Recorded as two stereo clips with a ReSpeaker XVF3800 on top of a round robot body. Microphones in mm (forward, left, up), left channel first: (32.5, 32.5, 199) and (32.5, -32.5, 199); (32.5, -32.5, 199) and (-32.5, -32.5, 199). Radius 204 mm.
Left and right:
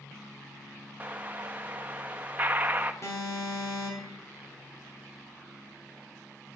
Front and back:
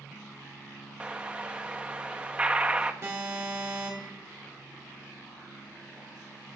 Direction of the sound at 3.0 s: 130° left.